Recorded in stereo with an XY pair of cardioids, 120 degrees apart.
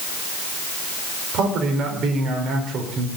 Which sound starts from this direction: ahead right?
A man speaking, at 1.3 s.